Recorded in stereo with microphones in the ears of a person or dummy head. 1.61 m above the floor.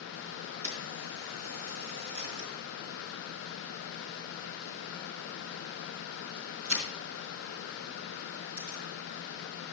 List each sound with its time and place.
0.6 s a camera shutter: 65° right (ahead or behind), 4 m